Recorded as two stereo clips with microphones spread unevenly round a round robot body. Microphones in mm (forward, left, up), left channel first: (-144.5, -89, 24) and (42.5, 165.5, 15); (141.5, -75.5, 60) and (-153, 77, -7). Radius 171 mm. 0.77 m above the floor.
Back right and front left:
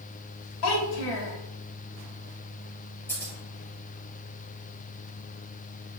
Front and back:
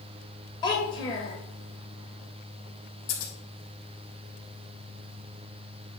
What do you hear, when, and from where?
0.6 s a child speaking: 105° right, 2.5 m
3.1 s scissors: 45° right, 3.5 m